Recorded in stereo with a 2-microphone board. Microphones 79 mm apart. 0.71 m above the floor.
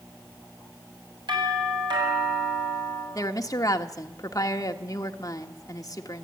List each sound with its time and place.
1.3 s a doorbell: 70° right (ahead or behind), 7.5 m
3.1 s a woman speaking: 50° left (ahead or behind), 1.4 m